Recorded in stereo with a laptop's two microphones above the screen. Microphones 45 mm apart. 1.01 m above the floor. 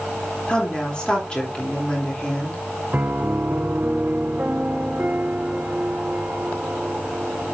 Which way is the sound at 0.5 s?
20° left (ahead or behind).